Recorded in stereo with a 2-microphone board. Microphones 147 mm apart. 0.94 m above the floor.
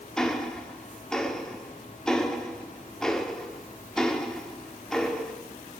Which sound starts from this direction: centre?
Ticking, at 0.2 s.